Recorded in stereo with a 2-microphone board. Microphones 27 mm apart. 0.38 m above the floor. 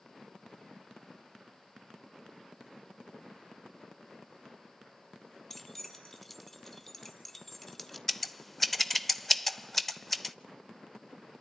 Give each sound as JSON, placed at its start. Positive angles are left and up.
{"t": 5.5, "sound": "keys jangling", "side_deg": 5, "distance_m": 1.9}
{"t": 8.1, "sound": "scissors", "side_deg": 0, "distance_m": 0.7}